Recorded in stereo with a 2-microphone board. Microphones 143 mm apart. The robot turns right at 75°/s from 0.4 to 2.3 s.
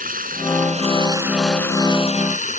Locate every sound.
0.0 s running water: 80° right; by 2.6 s 65° left